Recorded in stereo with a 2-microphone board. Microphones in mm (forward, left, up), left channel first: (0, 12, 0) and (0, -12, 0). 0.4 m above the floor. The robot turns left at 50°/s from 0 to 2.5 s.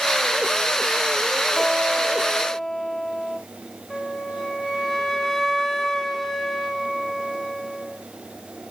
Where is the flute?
10° left (ahead or behind), 1.5 m.